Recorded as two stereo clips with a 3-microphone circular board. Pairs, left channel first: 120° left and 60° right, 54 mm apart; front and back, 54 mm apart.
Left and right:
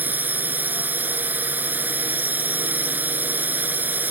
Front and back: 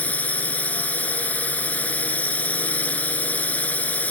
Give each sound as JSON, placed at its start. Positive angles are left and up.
{"t": 0.0, "sound": "a drone", "azimuth_deg": -40}